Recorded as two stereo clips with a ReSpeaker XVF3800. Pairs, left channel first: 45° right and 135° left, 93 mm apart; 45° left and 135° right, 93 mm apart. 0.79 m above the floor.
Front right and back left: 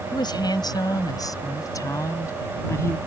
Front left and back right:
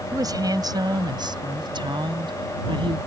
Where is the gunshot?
No gunshot in this recording.